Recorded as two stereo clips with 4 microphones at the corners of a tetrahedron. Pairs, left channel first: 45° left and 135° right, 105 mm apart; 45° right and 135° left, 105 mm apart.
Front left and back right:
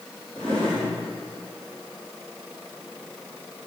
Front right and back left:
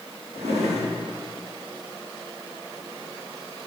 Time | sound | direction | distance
0.3 | a drawer | 125° left | 3.5 m